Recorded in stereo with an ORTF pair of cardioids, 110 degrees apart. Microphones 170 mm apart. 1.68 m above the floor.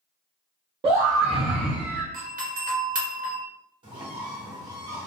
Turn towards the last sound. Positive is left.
turn(degrees=-30)